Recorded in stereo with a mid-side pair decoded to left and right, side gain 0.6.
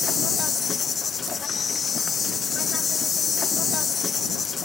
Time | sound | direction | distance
0.0 | an insect | 35° left | ?